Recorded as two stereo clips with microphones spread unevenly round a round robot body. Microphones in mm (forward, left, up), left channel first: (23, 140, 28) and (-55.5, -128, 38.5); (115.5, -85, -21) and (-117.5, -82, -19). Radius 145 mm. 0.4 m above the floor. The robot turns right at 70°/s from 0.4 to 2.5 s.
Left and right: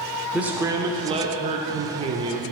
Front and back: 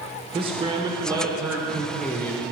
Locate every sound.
0.3 s a man speaking: 170° left, 0.8 m; by 2.5 s 45° right, 0.8 m